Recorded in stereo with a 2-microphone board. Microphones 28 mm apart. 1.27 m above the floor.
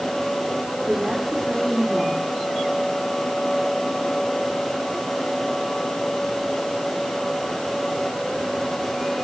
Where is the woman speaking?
15° right (ahead or behind), 3.5 m.